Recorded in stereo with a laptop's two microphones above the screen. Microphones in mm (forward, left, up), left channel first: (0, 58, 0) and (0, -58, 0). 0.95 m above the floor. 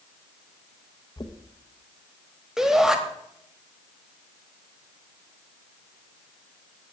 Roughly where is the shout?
Centre.